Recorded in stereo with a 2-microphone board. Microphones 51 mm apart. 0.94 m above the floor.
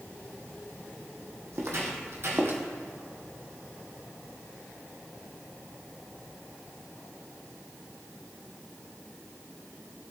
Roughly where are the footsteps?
Right.